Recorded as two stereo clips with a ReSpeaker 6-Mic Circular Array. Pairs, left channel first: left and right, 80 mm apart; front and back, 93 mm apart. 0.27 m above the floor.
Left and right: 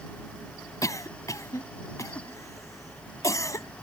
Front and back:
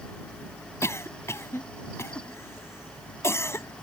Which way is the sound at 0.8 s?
55° left.